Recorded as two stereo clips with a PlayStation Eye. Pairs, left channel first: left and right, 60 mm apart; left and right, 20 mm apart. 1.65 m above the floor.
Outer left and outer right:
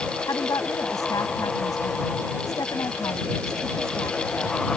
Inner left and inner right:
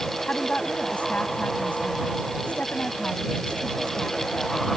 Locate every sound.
0.3 s a woman speaking: 80° left